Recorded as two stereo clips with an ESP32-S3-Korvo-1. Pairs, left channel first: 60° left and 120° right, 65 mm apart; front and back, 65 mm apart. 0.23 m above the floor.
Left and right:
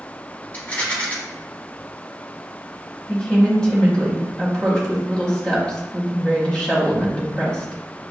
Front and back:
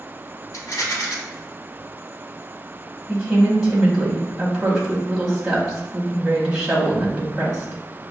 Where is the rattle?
5° left, 0.8 m.